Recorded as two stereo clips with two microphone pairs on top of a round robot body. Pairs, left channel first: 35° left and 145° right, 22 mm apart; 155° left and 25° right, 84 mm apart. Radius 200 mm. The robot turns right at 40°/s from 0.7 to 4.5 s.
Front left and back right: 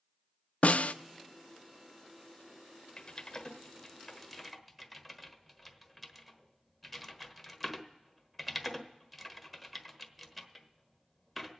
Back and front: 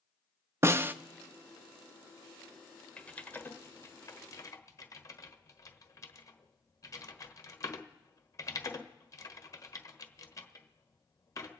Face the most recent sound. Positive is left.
turn(degrees=135)